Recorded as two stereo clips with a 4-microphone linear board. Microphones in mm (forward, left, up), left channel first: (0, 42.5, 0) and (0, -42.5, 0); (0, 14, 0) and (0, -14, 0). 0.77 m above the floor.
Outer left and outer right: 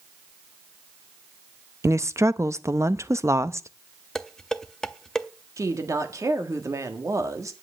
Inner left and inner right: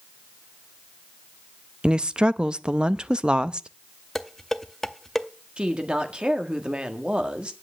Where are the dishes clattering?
5° left (ahead or behind), 0.6 m.